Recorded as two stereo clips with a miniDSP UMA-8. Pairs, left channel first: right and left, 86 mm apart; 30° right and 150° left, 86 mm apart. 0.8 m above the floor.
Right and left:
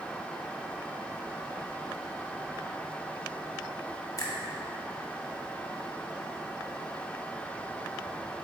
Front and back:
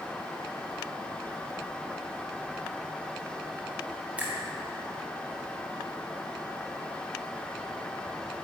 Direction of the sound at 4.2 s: 135° right.